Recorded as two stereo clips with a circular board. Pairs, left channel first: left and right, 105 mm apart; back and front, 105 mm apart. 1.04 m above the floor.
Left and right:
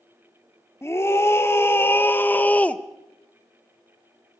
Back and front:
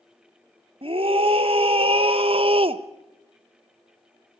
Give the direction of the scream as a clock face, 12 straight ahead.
11 o'clock.